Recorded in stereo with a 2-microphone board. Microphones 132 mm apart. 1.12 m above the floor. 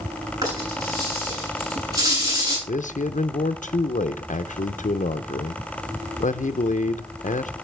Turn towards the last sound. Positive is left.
turn(degrees=75)  # may be behind; listen again after turning